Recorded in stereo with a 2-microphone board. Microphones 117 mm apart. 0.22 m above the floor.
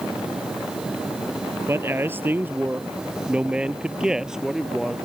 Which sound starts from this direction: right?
A man speaking, at 1.7 s.